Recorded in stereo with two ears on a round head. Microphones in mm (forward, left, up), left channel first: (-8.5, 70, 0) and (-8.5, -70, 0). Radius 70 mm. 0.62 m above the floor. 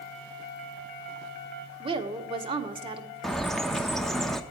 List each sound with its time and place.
1.8 s a woman speaking: 30° right (ahead or behind), 1.3 m
3.2 s a bird: centre (ahead or behind), 0.8 m